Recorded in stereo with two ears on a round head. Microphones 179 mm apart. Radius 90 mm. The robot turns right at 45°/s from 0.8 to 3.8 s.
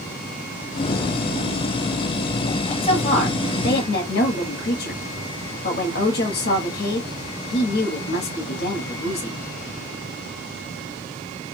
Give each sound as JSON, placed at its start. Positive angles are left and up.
{"t": 2.8, "sound": "a woman speaking", "azimuth_deg": 35, "distance_m": 1.2}